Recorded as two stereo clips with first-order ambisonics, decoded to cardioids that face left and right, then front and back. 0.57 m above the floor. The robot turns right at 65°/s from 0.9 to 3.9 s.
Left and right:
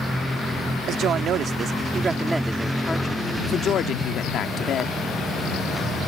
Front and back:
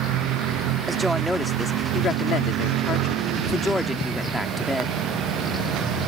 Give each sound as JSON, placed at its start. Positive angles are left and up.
{"t": 0.9, "sound": "a woman speaking", "azimuth_deg": -110}